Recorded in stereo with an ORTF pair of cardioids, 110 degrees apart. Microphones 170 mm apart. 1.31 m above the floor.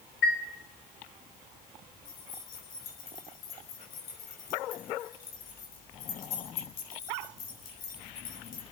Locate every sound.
0.2 s a chime: 70° left, 3.5 m
2.0 s keys jangling: 60° left, 5.5 m